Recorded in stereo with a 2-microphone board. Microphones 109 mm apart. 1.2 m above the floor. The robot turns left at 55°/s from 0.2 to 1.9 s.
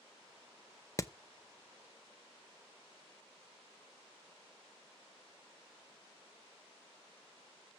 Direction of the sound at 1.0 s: 30° left (ahead or behind).